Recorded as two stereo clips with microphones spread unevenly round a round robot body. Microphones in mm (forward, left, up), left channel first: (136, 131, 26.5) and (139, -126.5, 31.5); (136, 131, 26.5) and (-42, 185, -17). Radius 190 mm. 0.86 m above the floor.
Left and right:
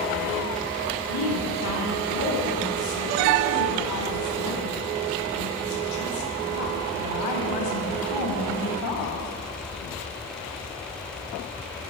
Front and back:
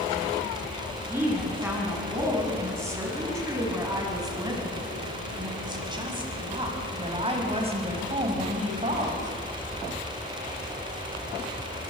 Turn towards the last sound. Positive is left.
turn(degrees=115)